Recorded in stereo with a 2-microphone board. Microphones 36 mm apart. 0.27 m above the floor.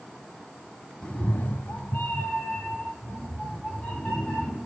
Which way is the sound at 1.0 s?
25° left (ahead or behind).